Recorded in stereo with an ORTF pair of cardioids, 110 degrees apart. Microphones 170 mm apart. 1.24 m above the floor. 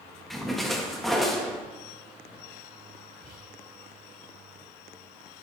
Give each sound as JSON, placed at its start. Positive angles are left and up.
{"t": 0.3, "sound": "a splash", "azimuth_deg": 0, "distance_m": 1.5}
{"t": 3.2, "sound": "whispering", "azimuth_deg": 5, "distance_m": 4.0}